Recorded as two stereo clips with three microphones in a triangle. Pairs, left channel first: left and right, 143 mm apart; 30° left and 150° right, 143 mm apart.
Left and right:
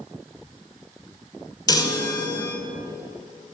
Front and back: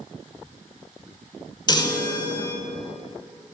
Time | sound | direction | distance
1.7 | a chime | 55° left | 0.6 m